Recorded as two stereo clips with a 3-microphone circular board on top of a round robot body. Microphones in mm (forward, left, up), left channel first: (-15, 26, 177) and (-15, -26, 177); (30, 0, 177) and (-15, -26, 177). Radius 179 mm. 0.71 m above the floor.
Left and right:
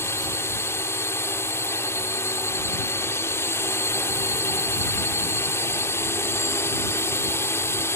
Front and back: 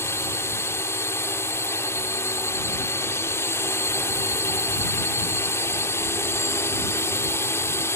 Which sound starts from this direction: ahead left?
A drone, at 0.0 s.